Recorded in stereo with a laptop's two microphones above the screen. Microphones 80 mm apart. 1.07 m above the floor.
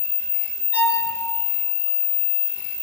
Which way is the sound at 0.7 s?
20° right (ahead or behind).